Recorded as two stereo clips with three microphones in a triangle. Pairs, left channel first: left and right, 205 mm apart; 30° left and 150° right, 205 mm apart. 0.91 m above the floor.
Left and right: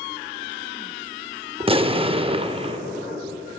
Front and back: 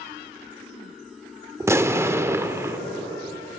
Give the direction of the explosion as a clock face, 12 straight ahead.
3 o'clock.